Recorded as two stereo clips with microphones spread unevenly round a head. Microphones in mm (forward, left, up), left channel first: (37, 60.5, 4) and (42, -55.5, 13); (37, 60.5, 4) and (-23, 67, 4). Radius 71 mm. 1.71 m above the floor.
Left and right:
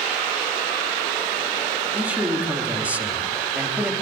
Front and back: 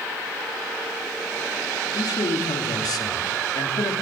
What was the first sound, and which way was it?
A man speaking, 10° right.